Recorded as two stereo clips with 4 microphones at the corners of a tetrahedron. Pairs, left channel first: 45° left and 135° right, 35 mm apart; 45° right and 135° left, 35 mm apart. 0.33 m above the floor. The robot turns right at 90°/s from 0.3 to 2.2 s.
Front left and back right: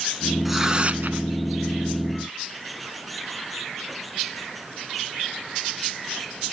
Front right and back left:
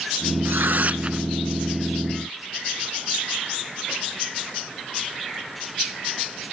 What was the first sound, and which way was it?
Tearing paper, 135° left.